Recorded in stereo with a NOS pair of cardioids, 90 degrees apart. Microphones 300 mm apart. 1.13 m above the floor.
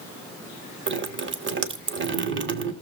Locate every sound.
0.9 s dripping: 45° right, 1.5 m